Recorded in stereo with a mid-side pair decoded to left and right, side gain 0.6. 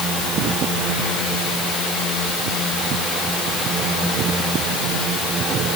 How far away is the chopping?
I don't hear chopping.